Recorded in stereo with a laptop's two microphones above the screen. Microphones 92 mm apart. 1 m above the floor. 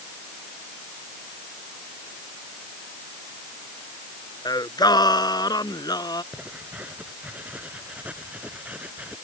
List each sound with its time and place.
4.5 s singing: 50° left (ahead or behind)
6.3 s writing: 15° right (ahead or behind)